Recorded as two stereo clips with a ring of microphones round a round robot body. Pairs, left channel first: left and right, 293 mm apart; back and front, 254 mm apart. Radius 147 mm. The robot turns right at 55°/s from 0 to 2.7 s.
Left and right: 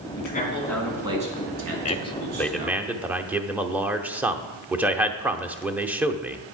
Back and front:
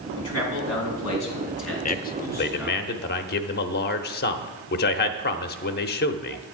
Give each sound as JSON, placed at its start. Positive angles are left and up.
{"t": 0.2, "sound": "a man speaking", "azimuth_deg": 145, "distance_m": 3.5}
{"t": 1.9, "sound": "a man speaking", "azimuth_deg": 140, "distance_m": 0.8}